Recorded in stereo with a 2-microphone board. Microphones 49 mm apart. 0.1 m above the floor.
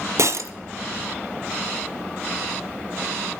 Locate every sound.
0.2 s breaking glass: 65° right (ahead or behind), 0.6 m